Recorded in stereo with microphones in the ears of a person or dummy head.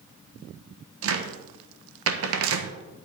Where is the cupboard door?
60° right (ahead or behind), 1.0 m.